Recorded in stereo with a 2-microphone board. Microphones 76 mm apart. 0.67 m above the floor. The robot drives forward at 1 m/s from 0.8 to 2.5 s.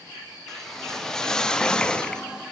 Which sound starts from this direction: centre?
A whoosh, at 0.5 s.